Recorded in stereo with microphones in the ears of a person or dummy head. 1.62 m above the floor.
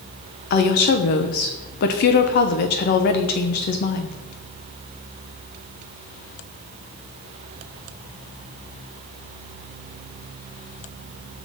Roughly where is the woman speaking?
Left.